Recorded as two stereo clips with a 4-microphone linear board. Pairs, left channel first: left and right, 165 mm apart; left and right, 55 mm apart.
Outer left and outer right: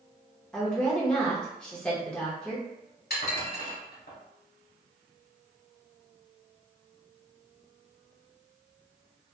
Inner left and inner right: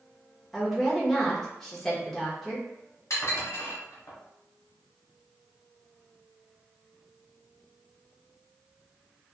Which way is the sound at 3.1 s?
70° left (ahead or behind).